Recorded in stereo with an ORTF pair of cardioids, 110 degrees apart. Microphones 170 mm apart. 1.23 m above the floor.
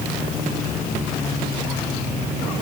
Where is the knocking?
No knocking in this recording.